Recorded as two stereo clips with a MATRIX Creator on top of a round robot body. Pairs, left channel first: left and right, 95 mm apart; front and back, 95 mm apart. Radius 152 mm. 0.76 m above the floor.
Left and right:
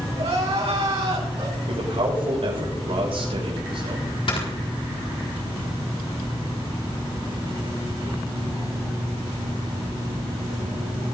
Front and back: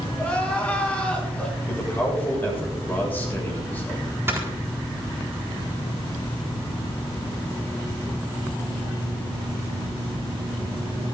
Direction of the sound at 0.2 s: 75° right.